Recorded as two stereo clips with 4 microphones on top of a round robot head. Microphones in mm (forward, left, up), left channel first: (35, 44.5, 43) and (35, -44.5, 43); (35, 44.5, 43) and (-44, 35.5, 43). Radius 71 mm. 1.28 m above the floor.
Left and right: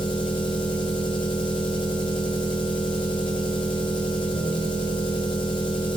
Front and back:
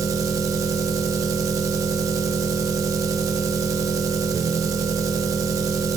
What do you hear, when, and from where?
0.0 s an engine running: 140° left, 1.1 m